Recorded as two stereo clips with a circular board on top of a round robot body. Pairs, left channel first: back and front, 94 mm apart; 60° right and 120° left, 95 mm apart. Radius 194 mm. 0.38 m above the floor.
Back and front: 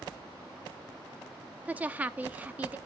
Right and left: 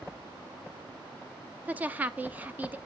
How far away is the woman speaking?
About 0.8 m.